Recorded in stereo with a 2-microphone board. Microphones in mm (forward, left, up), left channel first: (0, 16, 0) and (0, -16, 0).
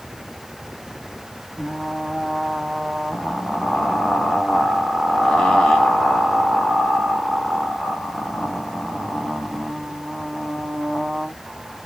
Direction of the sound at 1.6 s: 20° left (ahead or behind).